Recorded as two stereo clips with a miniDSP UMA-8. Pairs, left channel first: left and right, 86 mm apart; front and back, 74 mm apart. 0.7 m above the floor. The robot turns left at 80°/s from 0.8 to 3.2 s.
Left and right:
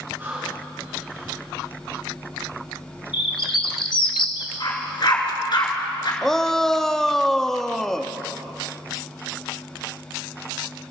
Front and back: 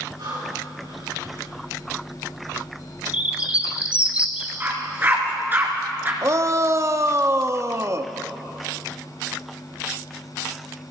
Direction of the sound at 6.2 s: 170° left.